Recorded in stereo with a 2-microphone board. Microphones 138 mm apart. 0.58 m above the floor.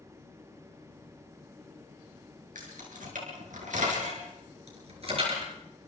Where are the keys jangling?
85° right, 6 m; by 5.4 s 45° right (ahead or behind), 6 m.